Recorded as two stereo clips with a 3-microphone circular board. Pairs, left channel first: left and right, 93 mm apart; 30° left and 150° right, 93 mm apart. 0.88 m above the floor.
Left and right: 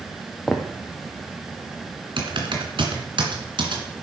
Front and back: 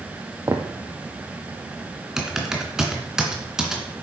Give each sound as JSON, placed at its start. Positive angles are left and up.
{"t": 0.5, "sound": "footsteps", "azimuth_deg": 175, "distance_m": 1.2}
{"t": 2.2, "sound": "typing on a keyboard", "azimuth_deg": -65, "distance_m": 2.0}